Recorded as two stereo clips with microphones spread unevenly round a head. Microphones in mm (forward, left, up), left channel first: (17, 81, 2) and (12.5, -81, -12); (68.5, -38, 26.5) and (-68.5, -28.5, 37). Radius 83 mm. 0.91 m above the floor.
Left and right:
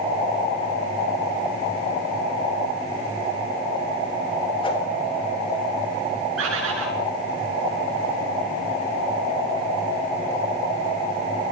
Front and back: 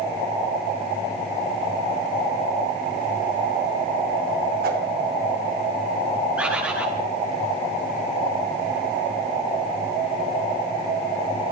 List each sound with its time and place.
4.6 s a whoosh: 155° left, 4 m
6.4 s a bird: 105° right, 7.5 m